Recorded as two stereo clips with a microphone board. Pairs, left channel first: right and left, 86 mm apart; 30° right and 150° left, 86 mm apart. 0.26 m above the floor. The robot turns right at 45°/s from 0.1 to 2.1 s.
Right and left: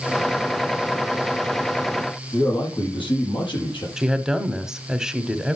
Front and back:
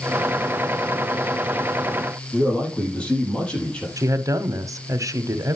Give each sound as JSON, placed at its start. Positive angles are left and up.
{"t": 2.3, "sound": "a man speaking", "azimuth_deg": -105, "distance_m": 6.5}
{"t": 4.0, "sound": "a woman speaking", "azimuth_deg": 170, "distance_m": 1.4}